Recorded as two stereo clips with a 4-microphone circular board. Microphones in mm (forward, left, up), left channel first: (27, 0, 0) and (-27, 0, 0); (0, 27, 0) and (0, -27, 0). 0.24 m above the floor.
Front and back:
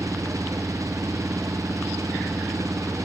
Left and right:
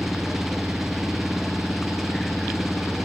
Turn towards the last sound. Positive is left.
turn(degrees=-175)